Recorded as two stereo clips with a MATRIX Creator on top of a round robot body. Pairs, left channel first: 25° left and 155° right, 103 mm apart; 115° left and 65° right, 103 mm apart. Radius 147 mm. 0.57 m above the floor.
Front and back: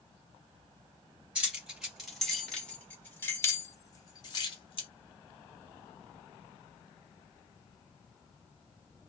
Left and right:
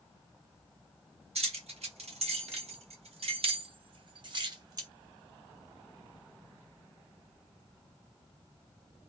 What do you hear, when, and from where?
1.4 s keys jangling: 80° right, 1.9 m; by 4.9 s 15° right, 1.5 m